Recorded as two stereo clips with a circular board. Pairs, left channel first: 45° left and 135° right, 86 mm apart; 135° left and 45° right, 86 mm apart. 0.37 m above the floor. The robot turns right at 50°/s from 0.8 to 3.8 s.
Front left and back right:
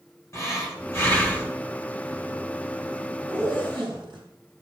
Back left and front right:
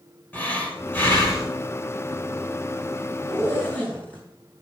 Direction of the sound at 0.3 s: 75° left.